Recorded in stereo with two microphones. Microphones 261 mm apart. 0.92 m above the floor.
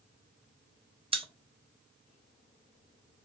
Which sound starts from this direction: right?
A pop, at 1.1 s.